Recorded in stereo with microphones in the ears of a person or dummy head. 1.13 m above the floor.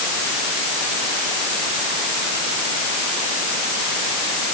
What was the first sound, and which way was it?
Only background noise.